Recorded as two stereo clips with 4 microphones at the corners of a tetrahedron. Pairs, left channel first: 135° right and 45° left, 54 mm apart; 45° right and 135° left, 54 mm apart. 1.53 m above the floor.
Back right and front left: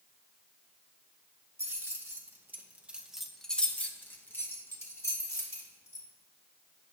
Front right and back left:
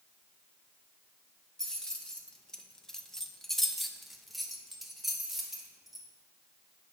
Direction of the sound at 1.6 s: 30° left.